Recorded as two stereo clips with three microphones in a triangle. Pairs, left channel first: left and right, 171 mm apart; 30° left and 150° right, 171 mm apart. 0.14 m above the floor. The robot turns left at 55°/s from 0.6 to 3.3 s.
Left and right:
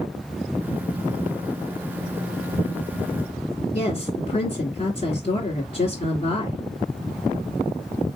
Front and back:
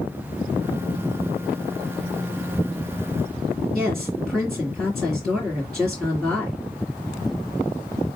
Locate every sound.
3.7 s a woman speaking: 115° left, 1.5 m